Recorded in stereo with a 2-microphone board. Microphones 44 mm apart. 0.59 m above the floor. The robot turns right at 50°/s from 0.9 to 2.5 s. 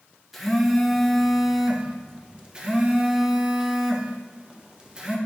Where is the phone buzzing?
Centre (ahead or behind), 0.5 m; by 5.2 s 20° right (ahead or behind), 0.5 m.